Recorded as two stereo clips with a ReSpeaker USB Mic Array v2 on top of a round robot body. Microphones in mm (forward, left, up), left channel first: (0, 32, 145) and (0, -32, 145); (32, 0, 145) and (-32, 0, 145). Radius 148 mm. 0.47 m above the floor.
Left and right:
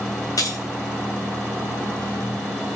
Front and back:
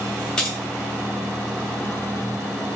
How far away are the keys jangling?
About 1.2 m.